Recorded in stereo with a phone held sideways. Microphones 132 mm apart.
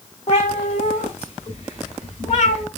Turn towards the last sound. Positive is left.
turn(degrees=50)  # may be behind; listen again after turning